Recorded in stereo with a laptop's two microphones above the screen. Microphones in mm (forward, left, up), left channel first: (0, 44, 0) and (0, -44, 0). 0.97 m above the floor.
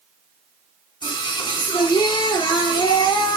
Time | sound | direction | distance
1.0 | singing | 65° left (ahead or behind) | 1.6 m